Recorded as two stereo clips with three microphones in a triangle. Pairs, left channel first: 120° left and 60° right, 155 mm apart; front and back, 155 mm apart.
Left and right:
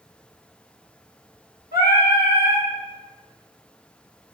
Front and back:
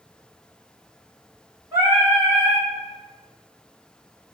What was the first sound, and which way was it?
Singing, 110° left.